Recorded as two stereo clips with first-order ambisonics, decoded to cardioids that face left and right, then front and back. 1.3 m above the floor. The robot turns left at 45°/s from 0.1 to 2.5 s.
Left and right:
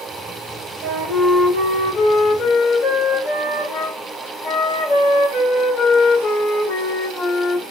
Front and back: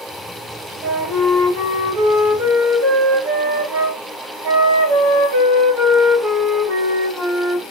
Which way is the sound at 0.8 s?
120° right.